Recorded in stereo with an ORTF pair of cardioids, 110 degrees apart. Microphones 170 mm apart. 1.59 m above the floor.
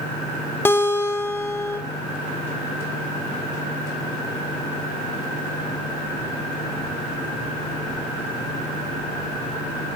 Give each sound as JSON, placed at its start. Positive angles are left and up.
{"t": 0.7, "sound": "a guitar", "azimuth_deg": 15, "distance_m": 3.5}